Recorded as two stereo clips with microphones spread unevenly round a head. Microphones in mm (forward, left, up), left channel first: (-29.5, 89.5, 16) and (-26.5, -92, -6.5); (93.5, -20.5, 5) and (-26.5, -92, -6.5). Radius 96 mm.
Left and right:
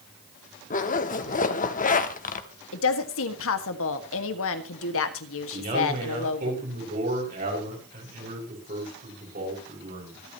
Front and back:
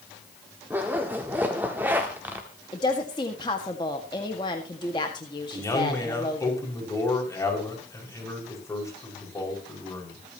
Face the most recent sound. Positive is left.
turn(degrees=-40)